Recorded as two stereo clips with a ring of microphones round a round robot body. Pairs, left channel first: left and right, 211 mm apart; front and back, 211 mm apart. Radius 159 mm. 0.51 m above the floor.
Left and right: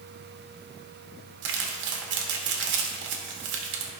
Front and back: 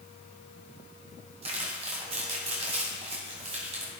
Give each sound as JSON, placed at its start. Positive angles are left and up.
{"t": 1.4, "sound": "crumpling", "azimuth_deg": -115, "distance_m": 1.2}